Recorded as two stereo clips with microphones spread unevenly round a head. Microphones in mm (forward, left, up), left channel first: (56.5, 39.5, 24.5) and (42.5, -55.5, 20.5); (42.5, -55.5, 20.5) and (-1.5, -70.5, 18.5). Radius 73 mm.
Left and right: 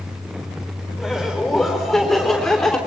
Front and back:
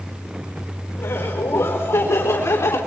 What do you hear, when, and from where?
1.0 s laughter: 10° right, 4 m; by 2.8 s straight ahead, 3 m